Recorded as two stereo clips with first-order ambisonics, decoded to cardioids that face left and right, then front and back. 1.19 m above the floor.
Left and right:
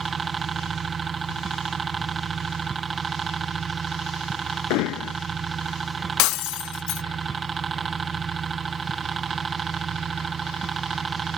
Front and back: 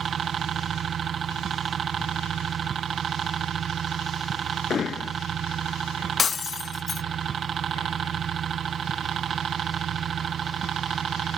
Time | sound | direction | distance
0.0 | a helicopter | 140° right | ?
4.7 | hammering | 65° left | ?
6.2 | breaking glass | 70° left | ?